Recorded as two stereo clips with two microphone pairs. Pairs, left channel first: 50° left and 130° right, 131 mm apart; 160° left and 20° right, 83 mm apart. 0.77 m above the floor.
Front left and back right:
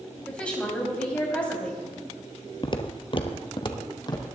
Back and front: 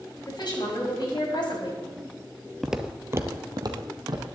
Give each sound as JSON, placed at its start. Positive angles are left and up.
{"t": 0.3, "sound": "a woman speaking", "azimuth_deg": 130, "distance_m": 4.0}
{"t": 2.6, "sound": "footsteps", "azimuth_deg": 70, "distance_m": 0.9}